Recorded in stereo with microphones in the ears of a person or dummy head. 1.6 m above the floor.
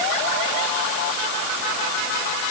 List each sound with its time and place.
Only background noise.